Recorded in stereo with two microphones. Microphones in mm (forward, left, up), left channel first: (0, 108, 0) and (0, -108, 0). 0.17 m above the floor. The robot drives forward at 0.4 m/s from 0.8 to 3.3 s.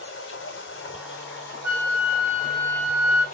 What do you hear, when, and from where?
0.0 s running water: 85° left, 0.8 m; by 3.4 s 40° left (ahead or behind), 1.3 m
1.6 s a flute: 60° left (ahead or behind), 2 m; by 3.2 s 75° left (ahead or behind), 2.0 m